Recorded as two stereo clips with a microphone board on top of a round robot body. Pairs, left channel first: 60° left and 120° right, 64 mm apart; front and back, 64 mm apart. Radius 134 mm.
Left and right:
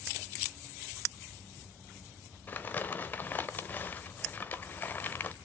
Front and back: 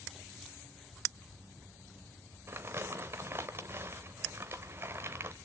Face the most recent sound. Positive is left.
turn(degrees=125)